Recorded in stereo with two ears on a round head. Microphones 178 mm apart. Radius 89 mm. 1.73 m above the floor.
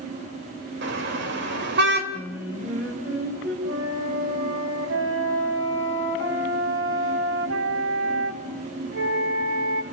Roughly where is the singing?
Centre.